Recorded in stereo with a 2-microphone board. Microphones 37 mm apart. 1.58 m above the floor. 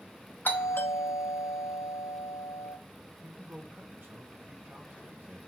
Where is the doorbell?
60° left (ahead or behind), 0.9 m.